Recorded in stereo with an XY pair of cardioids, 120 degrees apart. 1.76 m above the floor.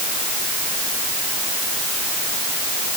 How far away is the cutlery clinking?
No cutlery clinking in this recording.